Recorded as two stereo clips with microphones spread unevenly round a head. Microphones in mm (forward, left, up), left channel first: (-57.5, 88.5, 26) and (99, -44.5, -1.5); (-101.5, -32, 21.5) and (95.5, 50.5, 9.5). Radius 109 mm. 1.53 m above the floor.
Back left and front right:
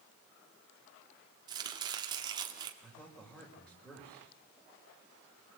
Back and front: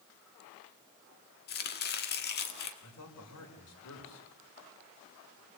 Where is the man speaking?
135° right, 5.5 m.